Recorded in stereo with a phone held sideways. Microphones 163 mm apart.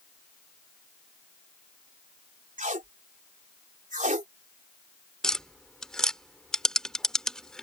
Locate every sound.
2.6 s tape being pulled: 55° right (ahead or behind)
5.2 s tapping: 5° left (ahead or behind)